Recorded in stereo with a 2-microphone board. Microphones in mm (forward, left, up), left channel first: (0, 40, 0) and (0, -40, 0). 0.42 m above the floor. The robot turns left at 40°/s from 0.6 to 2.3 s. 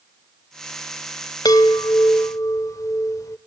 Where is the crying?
No crying in this recording.